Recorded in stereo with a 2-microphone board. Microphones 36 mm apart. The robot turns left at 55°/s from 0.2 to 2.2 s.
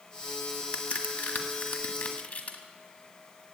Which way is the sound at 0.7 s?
35° left (ahead or behind).